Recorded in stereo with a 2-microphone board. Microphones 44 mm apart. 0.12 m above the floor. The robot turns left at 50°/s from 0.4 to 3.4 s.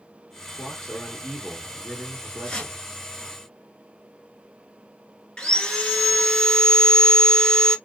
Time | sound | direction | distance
0.5 | a man speaking | 15° left (ahead or behind) | 1.6 m
2.4 | a whoosh | 10° left (ahead or behind) | 0.9 m
5.4 | sawing | 20° left (ahead or behind) | 0.8 m